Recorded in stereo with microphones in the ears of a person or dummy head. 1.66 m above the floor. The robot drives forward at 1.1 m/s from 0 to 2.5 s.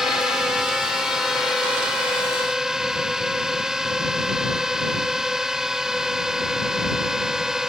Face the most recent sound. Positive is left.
turn(degrees=-5)  # may be behind; listen again after turning